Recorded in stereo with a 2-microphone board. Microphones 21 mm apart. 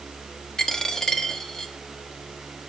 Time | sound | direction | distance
0.6 | a dropped coin | 25° left (ahead or behind) | 1.0 m